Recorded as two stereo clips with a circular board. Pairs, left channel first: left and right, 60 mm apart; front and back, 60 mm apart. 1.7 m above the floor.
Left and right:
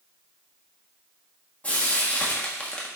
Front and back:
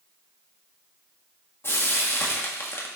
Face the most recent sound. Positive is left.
turn(degrees=30)